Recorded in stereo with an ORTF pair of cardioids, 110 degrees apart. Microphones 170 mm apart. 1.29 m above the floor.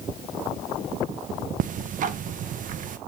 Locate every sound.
1.6 s ticking: 50° right, 0.9 m